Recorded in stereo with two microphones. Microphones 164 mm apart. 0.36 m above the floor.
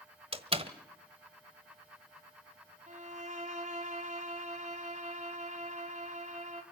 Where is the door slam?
35° right (ahead or behind), 1.2 m.